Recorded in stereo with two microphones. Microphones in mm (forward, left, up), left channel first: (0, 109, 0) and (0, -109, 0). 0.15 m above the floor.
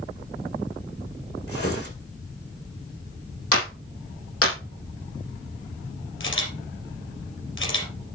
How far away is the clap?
About 5 m.